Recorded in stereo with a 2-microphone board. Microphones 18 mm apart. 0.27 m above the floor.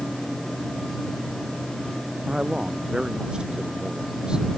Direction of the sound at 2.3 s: 50° right (ahead or behind).